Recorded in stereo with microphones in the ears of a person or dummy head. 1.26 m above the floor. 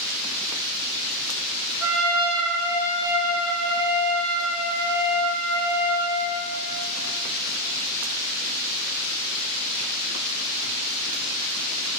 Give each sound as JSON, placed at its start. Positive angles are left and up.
{"t": 1.8, "sound": "a trumpet", "side_deg": 5, "distance_m": 1.8}